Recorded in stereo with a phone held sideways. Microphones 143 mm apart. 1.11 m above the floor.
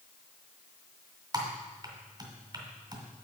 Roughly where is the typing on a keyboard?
Right.